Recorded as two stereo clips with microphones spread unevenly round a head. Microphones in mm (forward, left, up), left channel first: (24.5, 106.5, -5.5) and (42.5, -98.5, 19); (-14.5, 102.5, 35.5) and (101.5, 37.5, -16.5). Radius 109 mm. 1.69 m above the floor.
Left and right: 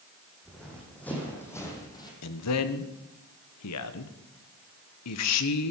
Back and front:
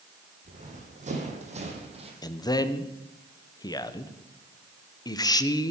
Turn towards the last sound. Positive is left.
turn(degrees=95)